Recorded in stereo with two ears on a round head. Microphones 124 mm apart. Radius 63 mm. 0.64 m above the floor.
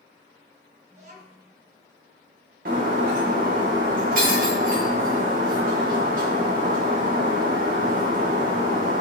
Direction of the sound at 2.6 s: 70° right (ahead or behind).